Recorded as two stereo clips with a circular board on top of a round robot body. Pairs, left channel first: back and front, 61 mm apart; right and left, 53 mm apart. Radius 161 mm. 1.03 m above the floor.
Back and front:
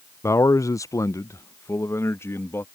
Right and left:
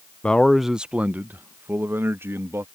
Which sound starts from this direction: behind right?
A man speaking, at 0.2 s.